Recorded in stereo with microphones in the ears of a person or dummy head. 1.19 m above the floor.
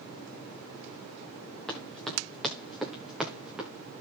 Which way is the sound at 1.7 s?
Centre (ahead or behind).